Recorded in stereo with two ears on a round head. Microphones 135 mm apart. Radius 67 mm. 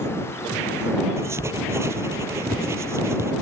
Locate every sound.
1.2 s writing: 20° right (ahead or behind)